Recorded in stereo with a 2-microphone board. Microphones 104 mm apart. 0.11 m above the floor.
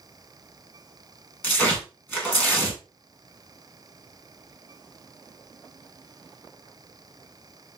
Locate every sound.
1.4 s tearing paper: 15° left (ahead or behind), 1.7 m